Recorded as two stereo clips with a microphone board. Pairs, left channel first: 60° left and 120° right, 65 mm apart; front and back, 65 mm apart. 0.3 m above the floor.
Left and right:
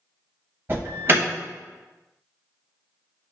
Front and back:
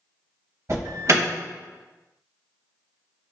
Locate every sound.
0.7 s an alarm: 165° right, 1.0 m